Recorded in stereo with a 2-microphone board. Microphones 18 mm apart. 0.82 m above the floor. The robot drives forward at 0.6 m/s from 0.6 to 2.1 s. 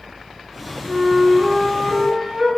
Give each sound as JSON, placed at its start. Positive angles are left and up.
{"t": 0.8, "sound": "a flute", "side_deg": -65, "distance_m": 1.3}